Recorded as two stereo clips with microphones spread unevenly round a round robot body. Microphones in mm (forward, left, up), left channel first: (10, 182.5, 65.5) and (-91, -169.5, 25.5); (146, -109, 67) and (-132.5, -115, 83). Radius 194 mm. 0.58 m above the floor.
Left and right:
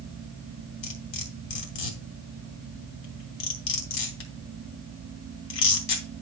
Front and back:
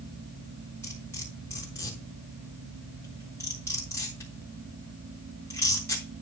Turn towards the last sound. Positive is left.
turn(degrees=85)